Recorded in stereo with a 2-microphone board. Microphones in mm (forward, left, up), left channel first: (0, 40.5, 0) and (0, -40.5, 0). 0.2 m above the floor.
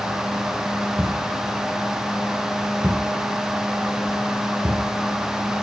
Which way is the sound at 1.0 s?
10° right (ahead or behind).